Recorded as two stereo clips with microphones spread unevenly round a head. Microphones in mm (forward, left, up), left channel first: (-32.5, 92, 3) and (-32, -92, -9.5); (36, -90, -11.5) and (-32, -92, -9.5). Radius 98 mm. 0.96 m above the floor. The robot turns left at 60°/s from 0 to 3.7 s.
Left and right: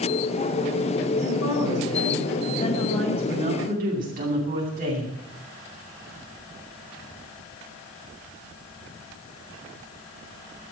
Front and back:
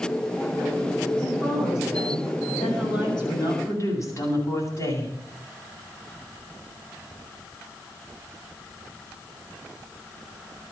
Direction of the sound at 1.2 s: 115° left.